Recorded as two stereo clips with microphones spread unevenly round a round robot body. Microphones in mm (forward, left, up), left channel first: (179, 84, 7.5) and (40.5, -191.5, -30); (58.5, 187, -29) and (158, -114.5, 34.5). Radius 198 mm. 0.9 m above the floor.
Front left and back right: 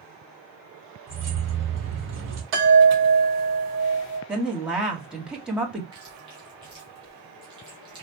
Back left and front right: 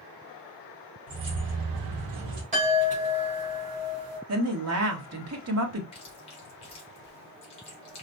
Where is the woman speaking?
35° right, 1.6 m.